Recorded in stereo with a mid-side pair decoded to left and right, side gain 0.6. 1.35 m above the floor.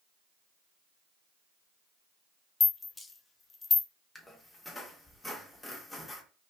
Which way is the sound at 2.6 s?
15° left.